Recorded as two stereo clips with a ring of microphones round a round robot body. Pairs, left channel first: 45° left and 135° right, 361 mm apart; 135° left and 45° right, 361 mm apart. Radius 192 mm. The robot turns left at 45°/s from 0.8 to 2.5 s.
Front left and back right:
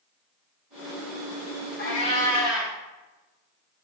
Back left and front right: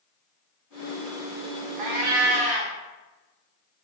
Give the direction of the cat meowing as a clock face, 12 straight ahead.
1 o'clock.